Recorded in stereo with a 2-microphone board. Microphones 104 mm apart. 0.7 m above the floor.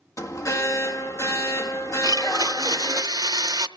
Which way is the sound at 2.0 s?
40° right (ahead or behind).